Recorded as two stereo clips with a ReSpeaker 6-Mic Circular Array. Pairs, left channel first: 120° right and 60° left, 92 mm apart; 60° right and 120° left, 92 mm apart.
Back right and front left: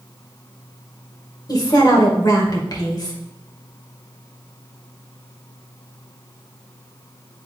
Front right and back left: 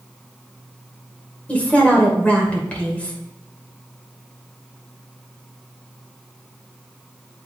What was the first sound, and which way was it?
A woman speaking, 125° right.